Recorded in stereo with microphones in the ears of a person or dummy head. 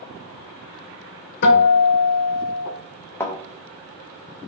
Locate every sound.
1.4 s a guitar: 55° left (ahead or behind), 0.7 m
3.2 s a thud: 15° left (ahead or behind), 0.7 m